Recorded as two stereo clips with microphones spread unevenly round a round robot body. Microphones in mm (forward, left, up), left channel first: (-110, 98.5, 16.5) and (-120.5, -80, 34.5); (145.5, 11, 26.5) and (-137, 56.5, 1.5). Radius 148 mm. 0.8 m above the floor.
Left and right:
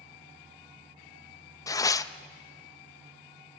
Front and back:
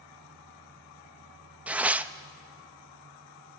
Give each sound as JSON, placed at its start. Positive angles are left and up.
{"t": 1.7, "sound": "tearing paper", "azimuth_deg": 105, "distance_m": 0.6}